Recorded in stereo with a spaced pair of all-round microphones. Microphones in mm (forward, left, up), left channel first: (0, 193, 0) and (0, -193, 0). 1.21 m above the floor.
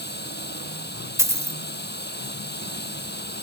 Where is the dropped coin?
5° right (ahead or behind).